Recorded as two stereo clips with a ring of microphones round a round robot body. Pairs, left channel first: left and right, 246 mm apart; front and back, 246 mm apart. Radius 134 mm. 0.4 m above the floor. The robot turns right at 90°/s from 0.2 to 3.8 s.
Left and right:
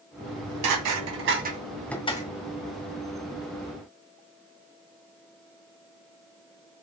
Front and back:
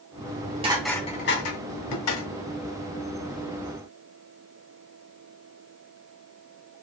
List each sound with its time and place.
0.2 s dishes clattering: 150° right, 2 m; by 2.3 s 40° left, 2 m